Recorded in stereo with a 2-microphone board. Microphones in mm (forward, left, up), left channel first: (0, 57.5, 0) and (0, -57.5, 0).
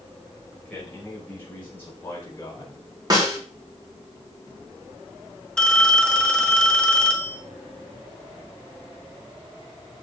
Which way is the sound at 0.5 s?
10° left (ahead or behind).